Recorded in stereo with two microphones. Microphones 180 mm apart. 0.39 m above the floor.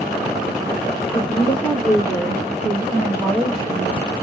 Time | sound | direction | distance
1.1 | a woman speaking | 30° left (ahead or behind) | 1.2 m